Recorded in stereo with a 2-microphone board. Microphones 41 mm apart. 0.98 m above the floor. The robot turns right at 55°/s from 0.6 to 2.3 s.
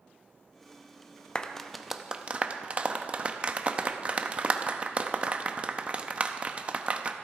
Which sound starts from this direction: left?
A clap, at 1.4 s.